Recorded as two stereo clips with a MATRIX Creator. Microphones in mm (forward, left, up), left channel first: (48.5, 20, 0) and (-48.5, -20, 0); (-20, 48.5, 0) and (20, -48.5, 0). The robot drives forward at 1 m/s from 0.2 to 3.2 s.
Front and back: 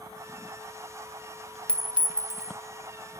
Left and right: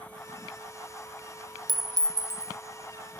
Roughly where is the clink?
Ahead right.